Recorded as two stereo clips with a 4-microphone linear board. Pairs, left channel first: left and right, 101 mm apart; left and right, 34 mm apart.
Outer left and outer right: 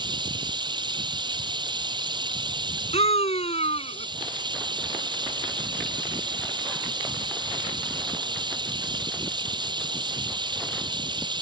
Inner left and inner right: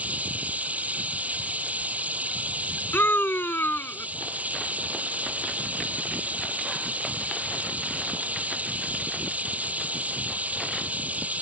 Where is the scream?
80° left.